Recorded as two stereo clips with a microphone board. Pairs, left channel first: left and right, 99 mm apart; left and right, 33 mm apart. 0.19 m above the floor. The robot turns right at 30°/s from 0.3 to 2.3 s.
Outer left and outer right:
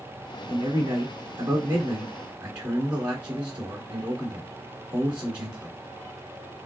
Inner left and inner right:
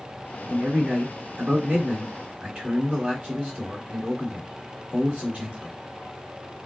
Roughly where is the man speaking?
Right.